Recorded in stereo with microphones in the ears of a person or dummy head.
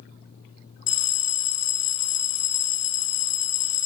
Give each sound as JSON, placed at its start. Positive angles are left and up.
{"t": 0.9, "sound": "a bell", "side_deg": 60, "distance_m": 0.6}